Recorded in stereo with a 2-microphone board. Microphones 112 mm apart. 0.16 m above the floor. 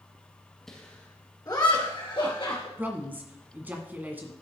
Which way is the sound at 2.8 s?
15° right (ahead or behind).